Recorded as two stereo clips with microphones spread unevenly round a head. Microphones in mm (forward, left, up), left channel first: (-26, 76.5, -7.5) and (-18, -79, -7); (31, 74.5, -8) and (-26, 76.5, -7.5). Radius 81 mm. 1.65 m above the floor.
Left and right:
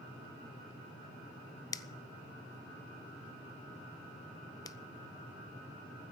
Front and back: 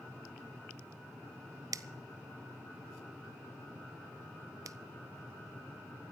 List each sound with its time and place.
1.7 s a finger snap: 160° left, 0.7 m